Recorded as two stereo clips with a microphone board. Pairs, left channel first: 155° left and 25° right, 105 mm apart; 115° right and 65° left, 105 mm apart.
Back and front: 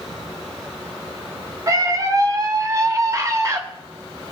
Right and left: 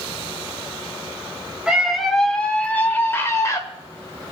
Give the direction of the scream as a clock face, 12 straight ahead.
12 o'clock.